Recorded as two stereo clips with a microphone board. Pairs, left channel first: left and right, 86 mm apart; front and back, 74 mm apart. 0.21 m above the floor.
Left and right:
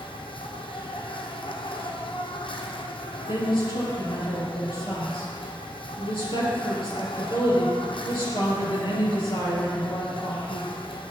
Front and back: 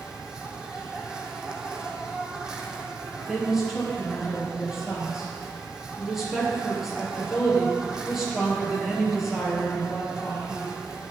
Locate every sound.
0.0 s an insect: 100° left, 1.6 m
3.3 s a woman speaking: 95° left, 5 m